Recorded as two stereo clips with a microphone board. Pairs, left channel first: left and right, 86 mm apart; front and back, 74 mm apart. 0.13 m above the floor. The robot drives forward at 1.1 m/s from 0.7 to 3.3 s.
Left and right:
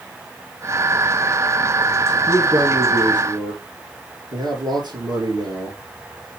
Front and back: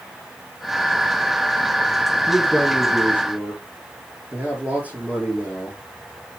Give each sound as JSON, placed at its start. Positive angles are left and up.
{"t": 2.3, "sound": "a man speaking", "azimuth_deg": -90, "distance_m": 3.5}